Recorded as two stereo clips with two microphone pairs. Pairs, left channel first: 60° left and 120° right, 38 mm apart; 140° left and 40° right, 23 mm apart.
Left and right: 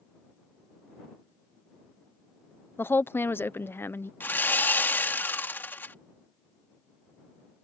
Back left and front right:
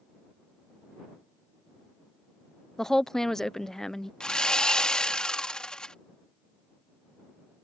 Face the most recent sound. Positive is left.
turn(degrees=90)